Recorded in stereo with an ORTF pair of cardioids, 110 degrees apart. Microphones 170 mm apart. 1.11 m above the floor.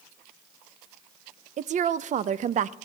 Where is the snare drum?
I don't hear a snare drum.